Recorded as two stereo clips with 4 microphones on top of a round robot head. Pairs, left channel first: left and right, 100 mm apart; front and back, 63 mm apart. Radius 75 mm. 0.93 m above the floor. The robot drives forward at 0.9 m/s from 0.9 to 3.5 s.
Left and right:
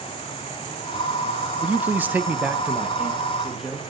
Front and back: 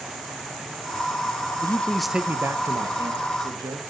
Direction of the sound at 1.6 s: 20° right.